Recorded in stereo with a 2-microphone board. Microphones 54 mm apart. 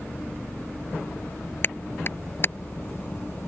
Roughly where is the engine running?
Left.